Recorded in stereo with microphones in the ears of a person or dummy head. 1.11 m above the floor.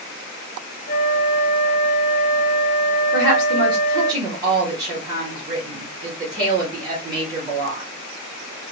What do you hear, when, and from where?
0.9 s a flute: 30° left (ahead or behind), 0.6 m
3.1 s a woman speaking: 25° right (ahead or behind), 1.0 m